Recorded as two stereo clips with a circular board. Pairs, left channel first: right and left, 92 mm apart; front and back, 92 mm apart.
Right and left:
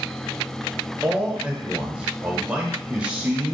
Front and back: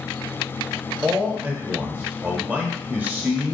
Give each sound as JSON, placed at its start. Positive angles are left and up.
{"t": 1.0, "sound": "a man speaking", "azimuth_deg": 145, "distance_m": 0.8}